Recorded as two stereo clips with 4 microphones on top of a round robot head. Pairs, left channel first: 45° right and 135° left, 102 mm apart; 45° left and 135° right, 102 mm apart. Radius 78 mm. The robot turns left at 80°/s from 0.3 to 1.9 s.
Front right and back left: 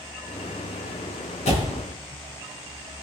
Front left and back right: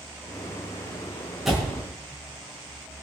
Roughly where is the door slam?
Ahead right.